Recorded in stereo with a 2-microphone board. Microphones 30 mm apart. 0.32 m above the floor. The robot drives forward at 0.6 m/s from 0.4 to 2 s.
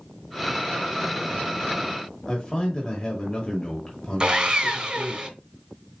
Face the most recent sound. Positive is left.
turn(degrees=-30)  # may be behind; listen again after turning